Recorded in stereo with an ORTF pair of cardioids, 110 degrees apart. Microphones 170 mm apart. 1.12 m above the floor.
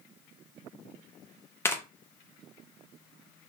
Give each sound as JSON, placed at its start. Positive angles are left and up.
{"t": 1.6, "sound": "tearing paper", "azimuth_deg": 15, "distance_m": 0.7}